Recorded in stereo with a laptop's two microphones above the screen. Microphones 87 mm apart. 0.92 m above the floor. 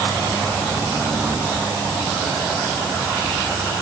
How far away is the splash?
I don't hear a splash.